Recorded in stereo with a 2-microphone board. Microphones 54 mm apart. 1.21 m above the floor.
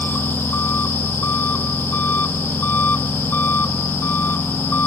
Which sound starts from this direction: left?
An engine running, at 0.0 s.